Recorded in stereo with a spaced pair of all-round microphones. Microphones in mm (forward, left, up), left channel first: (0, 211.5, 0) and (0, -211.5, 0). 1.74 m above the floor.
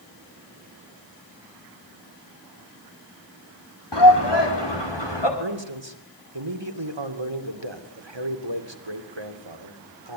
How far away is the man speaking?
About 2.5 m.